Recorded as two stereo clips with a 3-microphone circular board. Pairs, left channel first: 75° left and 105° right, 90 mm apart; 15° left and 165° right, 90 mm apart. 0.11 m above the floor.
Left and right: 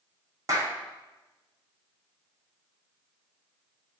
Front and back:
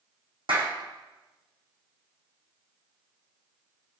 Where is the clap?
155° right, 5 m.